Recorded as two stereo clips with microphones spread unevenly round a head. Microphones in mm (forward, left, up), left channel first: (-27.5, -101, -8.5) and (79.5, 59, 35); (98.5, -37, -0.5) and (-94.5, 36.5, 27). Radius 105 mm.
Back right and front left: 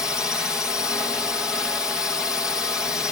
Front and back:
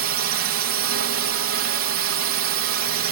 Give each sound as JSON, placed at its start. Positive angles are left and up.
{"t": 0.0, "sound": "a drone", "azimuth_deg": 150}